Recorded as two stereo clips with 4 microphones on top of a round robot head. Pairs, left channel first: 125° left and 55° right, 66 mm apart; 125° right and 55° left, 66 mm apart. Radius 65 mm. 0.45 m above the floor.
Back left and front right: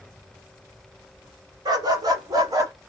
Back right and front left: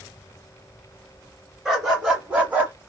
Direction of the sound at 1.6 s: 30° right.